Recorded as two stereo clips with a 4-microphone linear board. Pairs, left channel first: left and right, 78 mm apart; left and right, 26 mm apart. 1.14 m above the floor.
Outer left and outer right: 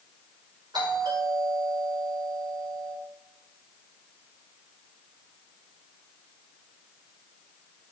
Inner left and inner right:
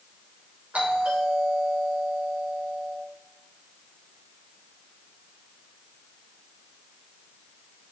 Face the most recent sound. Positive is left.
turn(degrees=-70)  # may be behind; listen again after turning